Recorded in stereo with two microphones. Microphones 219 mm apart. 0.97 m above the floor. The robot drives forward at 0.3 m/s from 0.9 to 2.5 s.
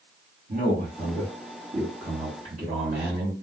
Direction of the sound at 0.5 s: 45° right (ahead or behind).